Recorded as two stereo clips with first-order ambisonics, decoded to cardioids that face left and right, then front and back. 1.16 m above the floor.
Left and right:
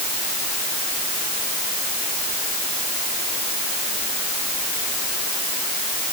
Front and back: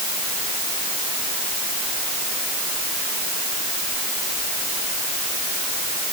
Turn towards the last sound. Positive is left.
No sound to turn to.